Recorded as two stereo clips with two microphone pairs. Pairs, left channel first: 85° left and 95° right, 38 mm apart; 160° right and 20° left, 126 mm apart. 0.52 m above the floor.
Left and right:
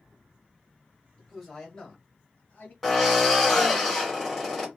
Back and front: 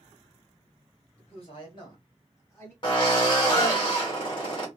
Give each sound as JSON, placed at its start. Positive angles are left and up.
{"t": 1.2, "sound": "a man speaking", "azimuth_deg": 165, "distance_m": 2.5}
{"t": 2.8, "sound": "a drill", "azimuth_deg": 165, "distance_m": 1.9}